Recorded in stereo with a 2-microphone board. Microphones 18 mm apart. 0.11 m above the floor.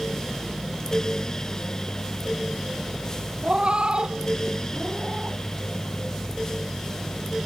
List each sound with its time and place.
3.4 s a cat meowing: 55° right (ahead or behind)